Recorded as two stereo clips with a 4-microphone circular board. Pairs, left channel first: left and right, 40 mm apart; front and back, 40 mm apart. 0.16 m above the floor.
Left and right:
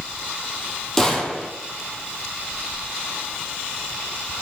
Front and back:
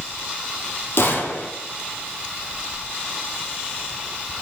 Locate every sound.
1.0 s a gunshot: 15° left, 2 m